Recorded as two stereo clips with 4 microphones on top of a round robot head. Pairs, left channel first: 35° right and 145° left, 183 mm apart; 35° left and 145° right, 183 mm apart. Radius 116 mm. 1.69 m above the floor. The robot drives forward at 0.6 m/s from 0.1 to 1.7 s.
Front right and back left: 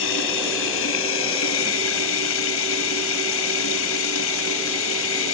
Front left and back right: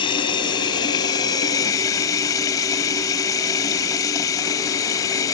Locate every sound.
0.0 s running water: 25° right; by 5.3 s 35° right